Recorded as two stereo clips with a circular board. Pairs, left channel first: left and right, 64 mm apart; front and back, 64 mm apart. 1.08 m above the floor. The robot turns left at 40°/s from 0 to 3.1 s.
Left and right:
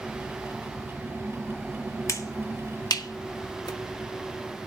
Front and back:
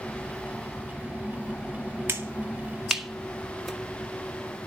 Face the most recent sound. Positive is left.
turn(degrees=85)